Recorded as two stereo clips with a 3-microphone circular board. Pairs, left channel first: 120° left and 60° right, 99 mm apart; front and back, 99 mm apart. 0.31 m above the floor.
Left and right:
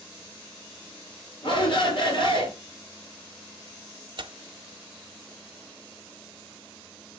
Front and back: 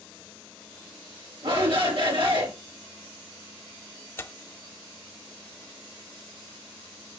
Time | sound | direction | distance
1.4 | a shout | 150° left | 3.5 m
4.2 | tearing paper | 55° right | 0.5 m